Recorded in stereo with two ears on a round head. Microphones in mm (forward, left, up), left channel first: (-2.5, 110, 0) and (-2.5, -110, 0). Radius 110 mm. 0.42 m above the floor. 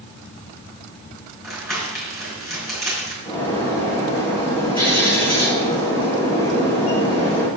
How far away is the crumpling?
About 6 m.